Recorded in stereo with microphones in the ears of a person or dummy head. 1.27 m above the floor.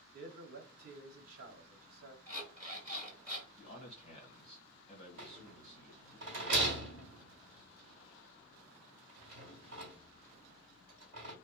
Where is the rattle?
45° right (ahead or behind), 1.3 m.